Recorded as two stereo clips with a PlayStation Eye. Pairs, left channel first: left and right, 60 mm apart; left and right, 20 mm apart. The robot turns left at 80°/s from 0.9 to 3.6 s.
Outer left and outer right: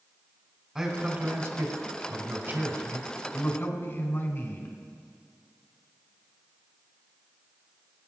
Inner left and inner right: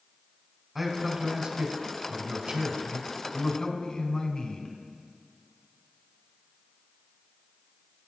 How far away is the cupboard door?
No cupboard door in this recording.